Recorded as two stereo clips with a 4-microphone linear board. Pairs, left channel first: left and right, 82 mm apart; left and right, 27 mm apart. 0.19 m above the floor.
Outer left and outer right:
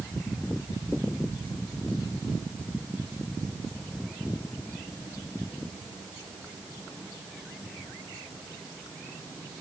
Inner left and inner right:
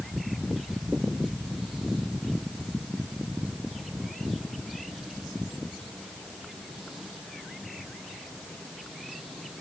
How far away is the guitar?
No guitar in this recording.